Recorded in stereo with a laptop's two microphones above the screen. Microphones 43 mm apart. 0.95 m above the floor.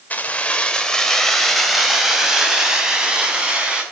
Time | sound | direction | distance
0.1 | keys jangling | 35° left (ahead or behind) | 2 m